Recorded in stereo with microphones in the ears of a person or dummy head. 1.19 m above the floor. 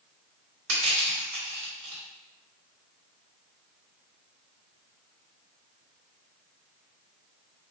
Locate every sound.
0.7 s crushing: 75° right (ahead or behind), 1.4 m